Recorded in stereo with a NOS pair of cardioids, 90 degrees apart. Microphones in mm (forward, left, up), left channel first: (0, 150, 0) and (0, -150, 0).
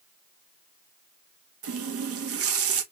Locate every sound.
1.6 s a running tap: 50° right, 1.0 m